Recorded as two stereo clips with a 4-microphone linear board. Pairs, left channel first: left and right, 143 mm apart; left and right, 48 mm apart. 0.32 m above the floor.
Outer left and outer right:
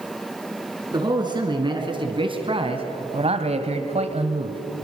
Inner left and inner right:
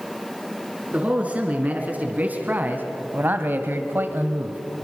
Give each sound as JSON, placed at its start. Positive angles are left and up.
{"t": 0.9, "sound": "a man speaking", "side_deg": -30, "distance_m": 5.0}